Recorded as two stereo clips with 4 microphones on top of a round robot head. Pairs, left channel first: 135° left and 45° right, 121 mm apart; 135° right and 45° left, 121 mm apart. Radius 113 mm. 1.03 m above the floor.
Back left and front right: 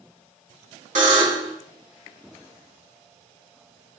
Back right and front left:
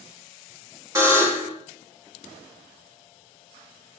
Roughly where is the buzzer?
Ahead right.